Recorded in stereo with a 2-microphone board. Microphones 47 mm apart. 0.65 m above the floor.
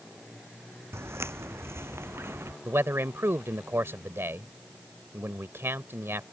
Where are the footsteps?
70° right (ahead or behind); by 2.5 s 65° right (ahead or behind).